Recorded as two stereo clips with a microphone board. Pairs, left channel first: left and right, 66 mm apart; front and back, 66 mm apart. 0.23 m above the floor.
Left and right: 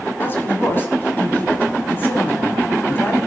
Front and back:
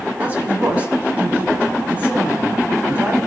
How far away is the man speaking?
About 1.4 m.